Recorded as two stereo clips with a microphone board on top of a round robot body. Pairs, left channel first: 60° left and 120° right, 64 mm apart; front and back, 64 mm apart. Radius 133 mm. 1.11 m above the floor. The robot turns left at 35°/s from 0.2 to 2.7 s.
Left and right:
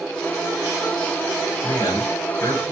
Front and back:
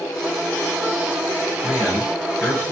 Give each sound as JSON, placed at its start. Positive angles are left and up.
{"t": 1.6, "sound": "a man speaking", "azimuth_deg": 105, "distance_m": 6.0}